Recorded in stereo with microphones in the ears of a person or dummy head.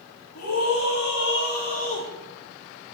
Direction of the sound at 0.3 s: 70° left (ahead or behind).